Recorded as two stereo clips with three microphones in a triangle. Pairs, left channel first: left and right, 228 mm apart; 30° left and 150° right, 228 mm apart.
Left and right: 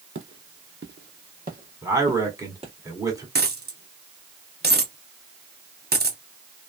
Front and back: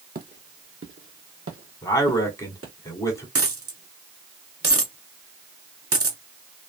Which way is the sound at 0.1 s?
105° right.